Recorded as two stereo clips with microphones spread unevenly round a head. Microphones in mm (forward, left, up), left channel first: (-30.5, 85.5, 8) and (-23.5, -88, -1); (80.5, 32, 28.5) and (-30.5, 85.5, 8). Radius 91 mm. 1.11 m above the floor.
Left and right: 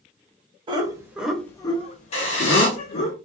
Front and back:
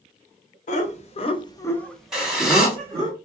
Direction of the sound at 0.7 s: 30° right.